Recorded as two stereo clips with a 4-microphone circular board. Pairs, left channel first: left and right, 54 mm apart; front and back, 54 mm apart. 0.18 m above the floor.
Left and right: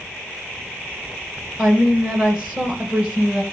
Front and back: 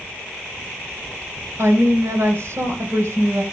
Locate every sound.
1.6 s a woman speaking: 155° right, 2.5 m